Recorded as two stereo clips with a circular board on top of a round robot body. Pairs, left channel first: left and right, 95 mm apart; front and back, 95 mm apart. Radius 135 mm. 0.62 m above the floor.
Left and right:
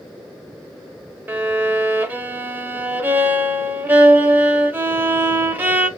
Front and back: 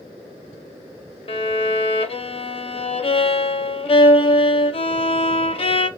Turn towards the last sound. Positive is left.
turn(degrees=-20)